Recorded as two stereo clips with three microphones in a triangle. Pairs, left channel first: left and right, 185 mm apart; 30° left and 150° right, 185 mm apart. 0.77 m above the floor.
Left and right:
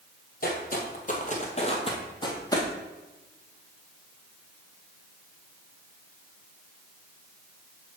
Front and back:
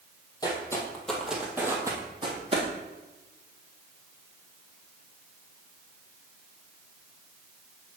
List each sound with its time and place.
0.4 s footsteps: 90° left, 1.2 m; by 2.7 s 160° left, 1.4 m